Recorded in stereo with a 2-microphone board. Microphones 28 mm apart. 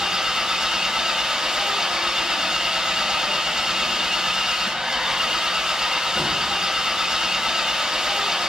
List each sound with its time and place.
0.0 s an engine running: 30° right (ahead or behind), 3.5 m